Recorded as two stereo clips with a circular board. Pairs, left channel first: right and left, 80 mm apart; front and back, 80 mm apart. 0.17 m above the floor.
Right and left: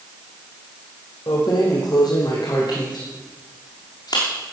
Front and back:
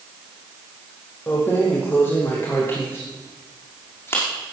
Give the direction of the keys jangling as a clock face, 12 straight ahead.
2 o'clock.